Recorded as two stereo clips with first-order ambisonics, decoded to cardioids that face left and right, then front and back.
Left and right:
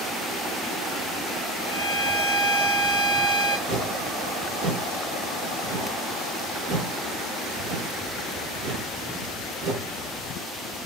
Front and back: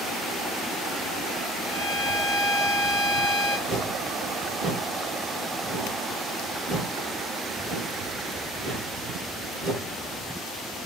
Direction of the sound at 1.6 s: 120° right.